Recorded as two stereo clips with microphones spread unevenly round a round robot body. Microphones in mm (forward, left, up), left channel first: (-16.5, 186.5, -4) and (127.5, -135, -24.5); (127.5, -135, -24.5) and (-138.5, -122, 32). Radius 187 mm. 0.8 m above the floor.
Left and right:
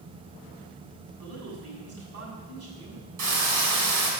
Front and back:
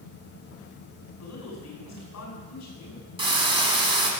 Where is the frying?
115° right, 5.5 m.